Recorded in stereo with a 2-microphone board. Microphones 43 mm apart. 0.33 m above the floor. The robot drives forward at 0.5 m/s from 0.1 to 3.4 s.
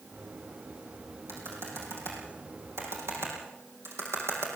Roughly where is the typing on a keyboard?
Right.